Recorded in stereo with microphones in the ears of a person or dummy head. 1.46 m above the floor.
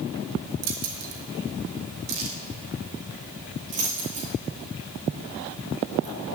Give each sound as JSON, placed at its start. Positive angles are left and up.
{"t": 0.6, "sound": "keys jangling", "side_deg": -75, "distance_m": 2.0}